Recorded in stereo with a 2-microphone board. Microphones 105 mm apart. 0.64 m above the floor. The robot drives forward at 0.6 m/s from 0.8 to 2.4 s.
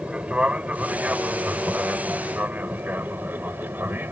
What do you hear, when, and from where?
0.0 s an aircraft: 10° right (ahead or behind); by 4.1 s 20° right (ahead or behind)